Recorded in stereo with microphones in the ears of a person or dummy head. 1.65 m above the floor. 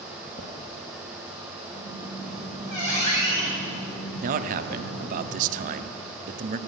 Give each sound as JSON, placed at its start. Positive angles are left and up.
{"t": 0.3, "sound": "footsteps", "side_deg": 10, "distance_m": 1.8}
{"t": 1.7, "sound": "a squeak", "side_deg": 30, "distance_m": 4.0}
{"t": 4.2, "sound": "a man speaking", "side_deg": -45, "distance_m": 0.7}